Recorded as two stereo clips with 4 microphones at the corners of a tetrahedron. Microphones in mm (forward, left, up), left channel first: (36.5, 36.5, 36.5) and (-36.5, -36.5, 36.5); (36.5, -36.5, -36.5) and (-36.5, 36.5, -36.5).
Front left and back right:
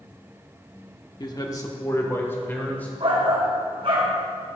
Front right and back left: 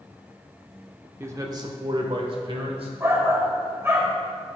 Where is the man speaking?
75° left, 0.9 m; by 2.9 s 120° left, 2 m.